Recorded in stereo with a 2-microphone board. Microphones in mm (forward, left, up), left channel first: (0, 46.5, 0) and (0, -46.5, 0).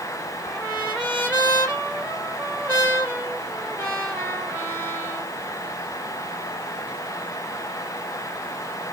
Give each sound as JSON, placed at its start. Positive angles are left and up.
{"t": 0.4, "sound": "a trumpet", "side_deg": -15, "distance_m": 3.5}